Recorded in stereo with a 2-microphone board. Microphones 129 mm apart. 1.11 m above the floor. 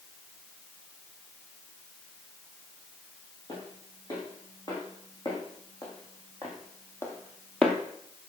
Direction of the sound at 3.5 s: 35° left (ahead or behind).